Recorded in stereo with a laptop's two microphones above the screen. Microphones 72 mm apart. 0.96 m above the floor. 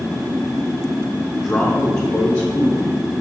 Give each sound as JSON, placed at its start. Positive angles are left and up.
{"t": 1.4, "sound": "a man speaking", "side_deg": 5, "distance_m": 0.6}